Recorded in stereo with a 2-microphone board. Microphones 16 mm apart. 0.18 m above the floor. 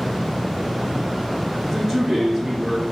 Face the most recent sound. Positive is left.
turn(degrees=-20)  # may be behind; listen again after turning